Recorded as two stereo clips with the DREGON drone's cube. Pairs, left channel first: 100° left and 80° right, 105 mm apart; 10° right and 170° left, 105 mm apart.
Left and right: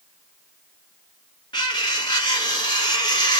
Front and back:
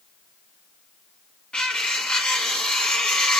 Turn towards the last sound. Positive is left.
turn(degrees=65)